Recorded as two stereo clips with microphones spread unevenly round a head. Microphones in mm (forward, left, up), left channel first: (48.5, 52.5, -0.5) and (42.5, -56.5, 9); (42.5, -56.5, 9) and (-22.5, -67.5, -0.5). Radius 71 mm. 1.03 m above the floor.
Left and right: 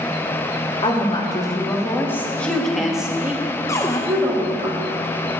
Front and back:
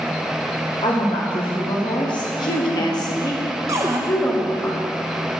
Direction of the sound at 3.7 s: 150° left.